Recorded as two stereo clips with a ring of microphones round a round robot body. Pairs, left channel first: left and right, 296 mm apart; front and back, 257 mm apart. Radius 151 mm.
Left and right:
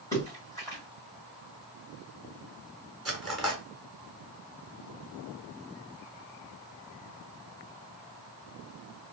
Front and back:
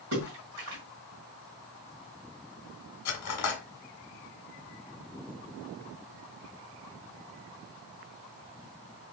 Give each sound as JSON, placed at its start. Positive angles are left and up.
{"t": 0.1, "sound": "a splash", "azimuth_deg": 170, "distance_m": 1.6}
{"t": 3.0, "sound": "cutlery clinking", "azimuth_deg": 0, "distance_m": 0.9}